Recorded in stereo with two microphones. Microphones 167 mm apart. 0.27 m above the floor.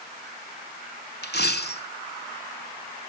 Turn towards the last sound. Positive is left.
turn(degrees=80)